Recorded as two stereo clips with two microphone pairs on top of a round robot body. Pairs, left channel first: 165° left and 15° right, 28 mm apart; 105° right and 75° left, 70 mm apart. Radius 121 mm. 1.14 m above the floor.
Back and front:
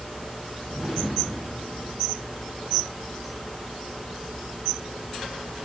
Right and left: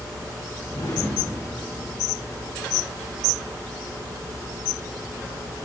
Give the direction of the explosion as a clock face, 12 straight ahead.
3 o'clock.